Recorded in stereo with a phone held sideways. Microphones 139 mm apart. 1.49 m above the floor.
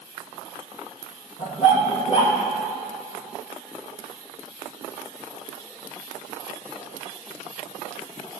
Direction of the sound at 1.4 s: 50° left (ahead or behind).